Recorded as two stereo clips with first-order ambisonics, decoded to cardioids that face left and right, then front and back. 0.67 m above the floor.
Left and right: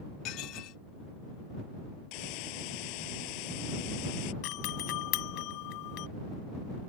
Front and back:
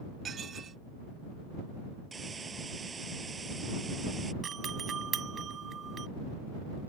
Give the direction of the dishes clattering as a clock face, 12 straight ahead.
8 o'clock.